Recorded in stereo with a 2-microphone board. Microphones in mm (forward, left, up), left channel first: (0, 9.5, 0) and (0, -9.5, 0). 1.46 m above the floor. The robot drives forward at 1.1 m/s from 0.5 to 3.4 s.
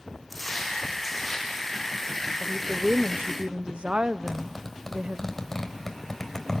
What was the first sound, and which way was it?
Footsteps, 10° left (ahead or behind).